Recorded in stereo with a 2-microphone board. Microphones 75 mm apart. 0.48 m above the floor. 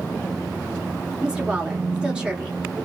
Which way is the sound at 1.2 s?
10° right (ahead or behind).